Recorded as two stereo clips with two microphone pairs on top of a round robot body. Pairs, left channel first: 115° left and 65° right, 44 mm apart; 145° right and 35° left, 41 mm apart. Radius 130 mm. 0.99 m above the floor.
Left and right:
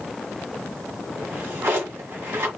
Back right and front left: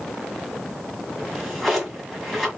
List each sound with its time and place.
1.2 s a drawer: 50° right, 1.9 m